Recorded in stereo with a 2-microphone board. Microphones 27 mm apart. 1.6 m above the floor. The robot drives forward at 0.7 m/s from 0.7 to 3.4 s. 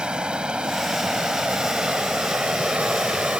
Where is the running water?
40° right (ahead or behind); by 3.4 s 60° right (ahead or behind).